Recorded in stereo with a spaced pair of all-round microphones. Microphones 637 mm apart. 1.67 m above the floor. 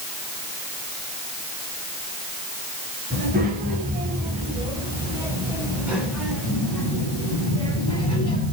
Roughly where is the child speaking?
Centre.